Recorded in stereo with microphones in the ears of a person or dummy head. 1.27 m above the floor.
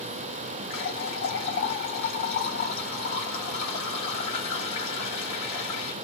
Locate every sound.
0.7 s a running tap: 60° left (ahead or behind), 1.8 m